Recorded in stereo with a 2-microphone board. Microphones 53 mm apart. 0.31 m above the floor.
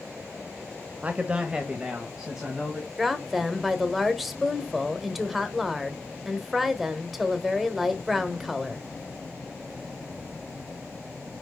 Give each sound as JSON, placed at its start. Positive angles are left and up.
{"t": 1.0, "sound": "a man speaking", "side_deg": -25, "distance_m": 0.9}
{"t": 3.0, "sound": "a woman speaking", "side_deg": -5, "distance_m": 1.1}